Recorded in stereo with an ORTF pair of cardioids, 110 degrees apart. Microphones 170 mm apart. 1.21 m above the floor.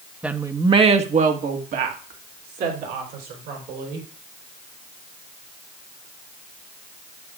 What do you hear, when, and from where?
0.2 s a woman speaking: 5° right, 1.2 m; by 4.1 s 80° right, 4.5 m